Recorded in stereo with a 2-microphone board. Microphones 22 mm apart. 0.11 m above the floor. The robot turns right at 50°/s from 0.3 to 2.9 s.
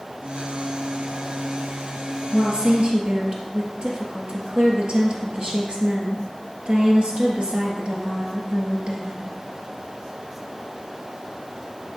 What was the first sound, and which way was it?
A woman speaking, 45° right (ahead or behind).